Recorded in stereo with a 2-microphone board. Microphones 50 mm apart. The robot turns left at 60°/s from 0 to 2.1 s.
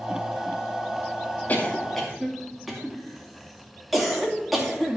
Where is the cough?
30° left (ahead or behind), 2 m; by 5.0 s 5° right (ahead or behind), 2 m.